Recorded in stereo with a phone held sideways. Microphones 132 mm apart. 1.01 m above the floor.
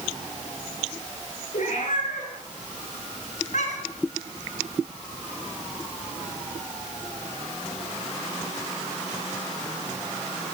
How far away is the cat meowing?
About 9 m.